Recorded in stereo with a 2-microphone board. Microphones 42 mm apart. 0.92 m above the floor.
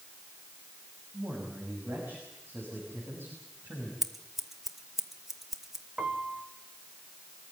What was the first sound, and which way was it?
A man speaking, 80° right.